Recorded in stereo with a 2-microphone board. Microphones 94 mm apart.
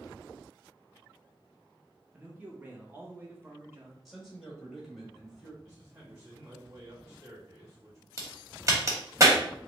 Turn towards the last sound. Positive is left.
turn(degrees=-30)  # may be behind; listen again after turning